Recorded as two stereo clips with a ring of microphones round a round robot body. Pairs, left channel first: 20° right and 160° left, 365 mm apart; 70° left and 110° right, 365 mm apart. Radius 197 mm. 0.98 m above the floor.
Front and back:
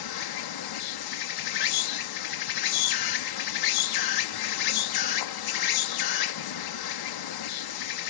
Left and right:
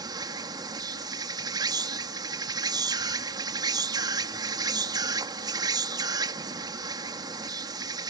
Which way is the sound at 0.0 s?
35° right.